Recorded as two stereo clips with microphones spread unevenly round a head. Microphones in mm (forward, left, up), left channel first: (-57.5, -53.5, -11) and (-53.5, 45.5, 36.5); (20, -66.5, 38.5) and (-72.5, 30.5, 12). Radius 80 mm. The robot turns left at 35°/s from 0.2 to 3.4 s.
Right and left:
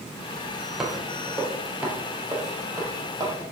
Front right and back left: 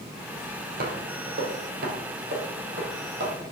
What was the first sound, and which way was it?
Footsteps, 145° left.